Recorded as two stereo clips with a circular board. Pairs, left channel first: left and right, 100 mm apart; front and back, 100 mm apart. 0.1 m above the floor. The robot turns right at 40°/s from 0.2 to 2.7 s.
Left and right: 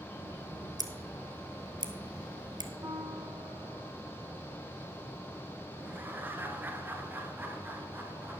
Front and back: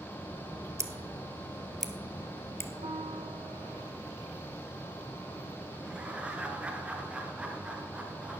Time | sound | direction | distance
0.8 | scissors | 130° right | 1.2 m
2.8 | a piano | 150° right | 2.0 m
5.8 | laughter | 120° right | 1.1 m